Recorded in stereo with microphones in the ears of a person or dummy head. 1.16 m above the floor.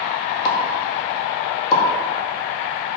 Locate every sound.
0.5 s a pop: 40° left (ahead or behind), 1.9 m